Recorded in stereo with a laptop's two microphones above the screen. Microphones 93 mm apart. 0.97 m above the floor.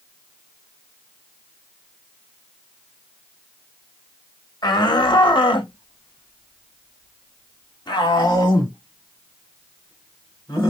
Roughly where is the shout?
Left.